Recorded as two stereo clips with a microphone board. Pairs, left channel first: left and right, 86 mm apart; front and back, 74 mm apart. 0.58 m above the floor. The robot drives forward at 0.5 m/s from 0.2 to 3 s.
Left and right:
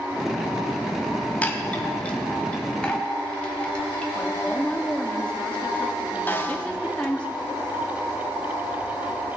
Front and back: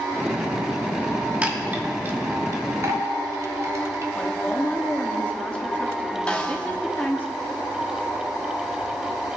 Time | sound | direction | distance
1.4 | a chime | 135° left | 1.1 m
4.2 | a woman speaking | 35° left | 1.0 m
6.3 | a snare drum | 55° left | 1.1 m